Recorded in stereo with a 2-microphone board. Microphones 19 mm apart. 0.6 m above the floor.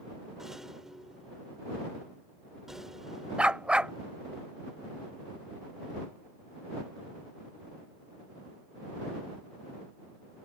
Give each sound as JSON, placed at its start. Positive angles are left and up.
{"t": 0.4, "sound": "a rattle", "side_deg": -20}
{"t": 3.4, "sound": "a dog barking", "side_deg": -60}